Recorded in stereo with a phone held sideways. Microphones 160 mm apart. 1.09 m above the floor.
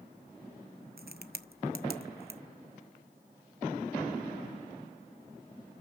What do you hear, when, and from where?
1.0 s a crack: 70° right (ahead or behind), 0.8 m